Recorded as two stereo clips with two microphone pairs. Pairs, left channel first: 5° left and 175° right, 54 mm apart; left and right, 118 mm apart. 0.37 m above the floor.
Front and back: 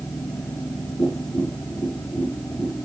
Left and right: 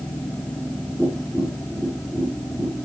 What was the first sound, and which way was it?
Tapping, 5° right.